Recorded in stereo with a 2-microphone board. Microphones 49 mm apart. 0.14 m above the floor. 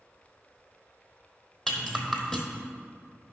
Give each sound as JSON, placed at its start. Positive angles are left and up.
{"t": 1.7, "sound": "a rattle", "side_deg": 5, "distance_m": 1.0}